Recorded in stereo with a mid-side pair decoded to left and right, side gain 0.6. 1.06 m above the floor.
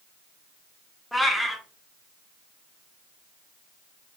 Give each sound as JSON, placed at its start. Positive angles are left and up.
{"t": 1.1, "sound": "a cat meowing", "azimuth_deg": 0, "distance_m": 1.3}